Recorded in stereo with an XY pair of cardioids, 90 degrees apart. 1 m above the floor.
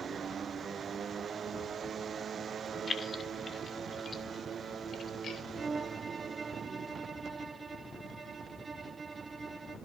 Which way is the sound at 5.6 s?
30° right.